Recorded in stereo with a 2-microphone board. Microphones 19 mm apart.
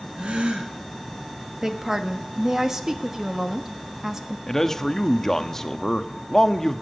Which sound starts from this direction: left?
A man speaking, at 4.5 s.